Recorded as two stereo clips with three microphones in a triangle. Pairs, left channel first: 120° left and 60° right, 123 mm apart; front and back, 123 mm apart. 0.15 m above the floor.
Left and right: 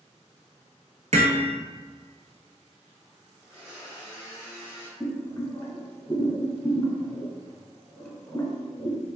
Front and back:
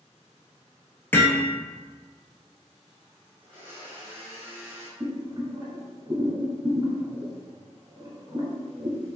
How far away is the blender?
About 1.6 m.